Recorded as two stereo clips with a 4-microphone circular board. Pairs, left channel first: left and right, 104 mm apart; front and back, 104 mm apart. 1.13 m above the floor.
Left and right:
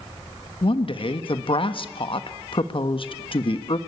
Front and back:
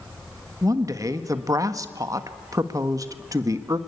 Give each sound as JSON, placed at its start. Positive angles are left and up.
{"t": 0.6, "sound": "a woman speaking", "azimuth_deg": 125, "distance_m": 1.3}